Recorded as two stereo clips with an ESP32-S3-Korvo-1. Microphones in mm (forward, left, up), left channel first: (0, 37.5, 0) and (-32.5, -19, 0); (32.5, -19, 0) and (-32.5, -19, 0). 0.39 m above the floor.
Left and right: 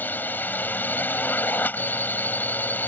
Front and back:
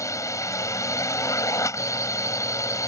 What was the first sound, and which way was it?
A drone, 10° left.